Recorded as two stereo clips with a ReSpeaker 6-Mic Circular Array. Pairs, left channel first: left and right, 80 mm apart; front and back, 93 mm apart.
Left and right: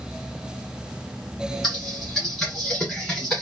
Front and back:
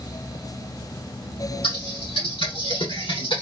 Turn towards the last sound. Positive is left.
turn(degrees=5)